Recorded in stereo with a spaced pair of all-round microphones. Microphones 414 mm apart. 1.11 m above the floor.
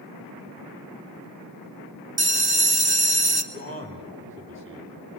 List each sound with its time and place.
2.2 s a bell: 65° right (ahead or behind), 1.2 m
3.5 s a man speaking: 30° right (ahead or behind), 3 m